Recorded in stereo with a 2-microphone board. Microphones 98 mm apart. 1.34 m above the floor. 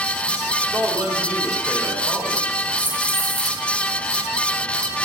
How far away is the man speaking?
About 3.5 m.